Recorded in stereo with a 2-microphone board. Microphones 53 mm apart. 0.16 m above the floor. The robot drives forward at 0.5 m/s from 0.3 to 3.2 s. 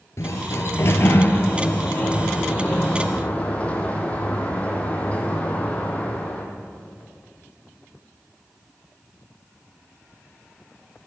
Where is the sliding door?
65° left (ahead or behind), 0.9 m; by 6.5 s 25° left (ahead or behind), 1.9 m.